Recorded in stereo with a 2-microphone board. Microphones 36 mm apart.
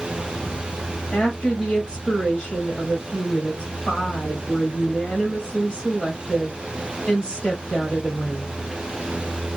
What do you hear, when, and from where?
1.1 s a woman speaking: 15° left (ahead or behind), 2 m